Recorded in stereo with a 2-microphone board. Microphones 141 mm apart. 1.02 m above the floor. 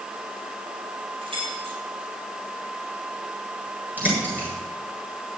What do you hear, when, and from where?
1.2 s keys jangling: 40° right (ahead or behind), 7 m
4.0 s a bird: 10° right (ahead or behind), 7.5 m